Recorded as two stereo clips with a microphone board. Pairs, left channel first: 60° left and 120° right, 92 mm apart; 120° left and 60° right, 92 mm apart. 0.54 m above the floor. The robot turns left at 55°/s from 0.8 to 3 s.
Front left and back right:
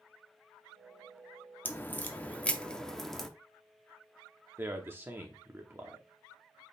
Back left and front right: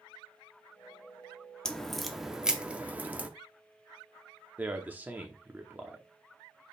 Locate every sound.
1.6 s a crack: 55° left, 0.6 m; by 3.3 s 20° right, 0.6 m
4.6 s a man speaking: 105° right, 0.7 m